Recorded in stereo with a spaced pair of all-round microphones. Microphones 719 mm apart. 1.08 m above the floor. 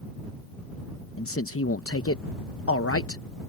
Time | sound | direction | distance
1.2 | a man speaking | 20° left (ahead or behind) | ?